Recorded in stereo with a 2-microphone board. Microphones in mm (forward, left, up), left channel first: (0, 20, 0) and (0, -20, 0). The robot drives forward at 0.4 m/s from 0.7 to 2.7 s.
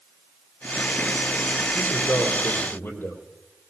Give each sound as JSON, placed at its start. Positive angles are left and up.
{"t": 1.7, "sound": "a man speaking", "side_deg": 80, "distance_m": 6.0}